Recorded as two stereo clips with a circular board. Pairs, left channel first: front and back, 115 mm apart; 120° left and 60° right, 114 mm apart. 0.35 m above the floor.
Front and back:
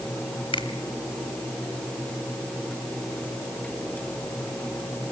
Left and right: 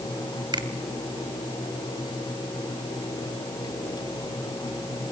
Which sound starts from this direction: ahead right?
A finger snap, at 0.5 s.